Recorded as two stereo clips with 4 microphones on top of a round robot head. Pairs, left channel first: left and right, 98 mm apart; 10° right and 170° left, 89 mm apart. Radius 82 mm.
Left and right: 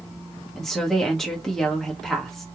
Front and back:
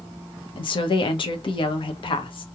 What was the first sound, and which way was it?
A woman speaking, 5° left.